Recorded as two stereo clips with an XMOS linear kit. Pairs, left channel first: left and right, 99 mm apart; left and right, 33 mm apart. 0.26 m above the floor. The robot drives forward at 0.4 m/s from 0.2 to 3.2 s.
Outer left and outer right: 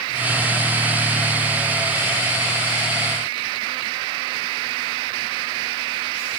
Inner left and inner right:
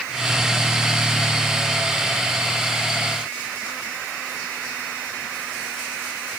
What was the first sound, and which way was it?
Only background noise.